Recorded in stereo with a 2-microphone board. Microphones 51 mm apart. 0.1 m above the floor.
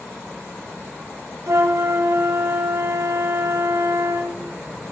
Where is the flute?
65° right (ahead or behind), 1.6 m.